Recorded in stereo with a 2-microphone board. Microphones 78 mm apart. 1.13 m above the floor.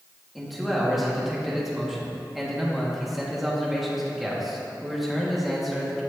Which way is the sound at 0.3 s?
Centre (ahead or behind).